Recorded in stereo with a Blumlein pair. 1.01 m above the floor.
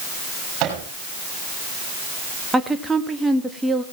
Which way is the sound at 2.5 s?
5° right.